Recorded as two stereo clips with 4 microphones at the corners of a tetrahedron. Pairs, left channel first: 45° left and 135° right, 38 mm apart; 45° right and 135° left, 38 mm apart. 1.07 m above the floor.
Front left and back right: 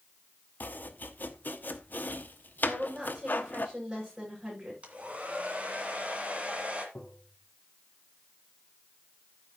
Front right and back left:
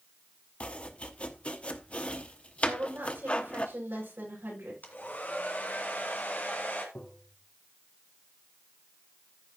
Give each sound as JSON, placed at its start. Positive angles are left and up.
{"t": 0.6, "sound": "chopping", "azimuth_deg": 15, "distance_m": 0.9}
{"t": 2.7, "sound": "a woman speaking", "azimuth_deg": 160, "distance_m": 7.5}
{"t": 4.8, "sound": "a hair dryer", "azimuth_deg": -85, "distance_m": 2.0}
{"t": 7.0, "sound": "tapping", "azimuth_deg": -10, "distance_m": 1.6}